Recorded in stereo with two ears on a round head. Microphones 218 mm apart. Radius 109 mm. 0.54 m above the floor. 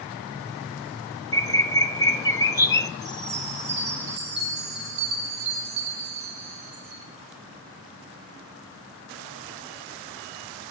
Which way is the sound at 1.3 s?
15° left (ahead or behind).